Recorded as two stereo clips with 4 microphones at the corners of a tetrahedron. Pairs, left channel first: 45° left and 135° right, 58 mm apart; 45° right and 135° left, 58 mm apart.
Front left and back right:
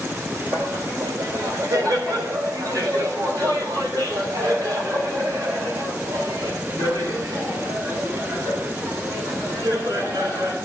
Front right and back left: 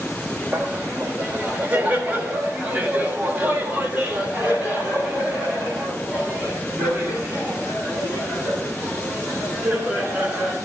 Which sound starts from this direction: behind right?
Laughter, at 0.5 s.